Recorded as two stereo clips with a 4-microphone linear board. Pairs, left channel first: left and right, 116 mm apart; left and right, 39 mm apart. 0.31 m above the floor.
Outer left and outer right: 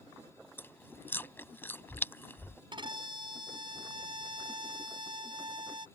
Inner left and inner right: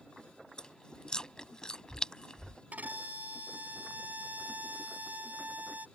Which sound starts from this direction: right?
A violin, at 2.7 s.